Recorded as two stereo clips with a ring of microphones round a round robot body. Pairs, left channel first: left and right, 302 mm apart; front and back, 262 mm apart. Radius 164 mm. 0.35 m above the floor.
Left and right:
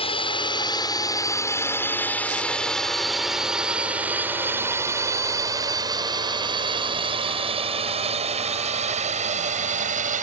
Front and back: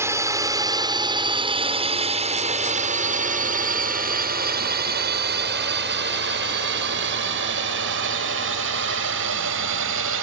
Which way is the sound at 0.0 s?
120° left.